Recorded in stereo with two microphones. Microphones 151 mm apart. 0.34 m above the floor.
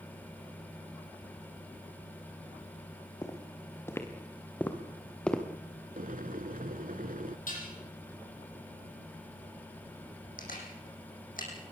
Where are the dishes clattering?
65° left (ahead or behind), 9 m.